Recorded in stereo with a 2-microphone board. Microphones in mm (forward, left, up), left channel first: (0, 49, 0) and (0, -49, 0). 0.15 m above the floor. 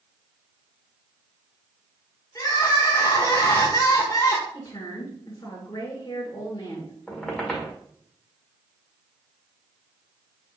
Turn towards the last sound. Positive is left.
turn(degrees=5)  # may be behind; listen again after turning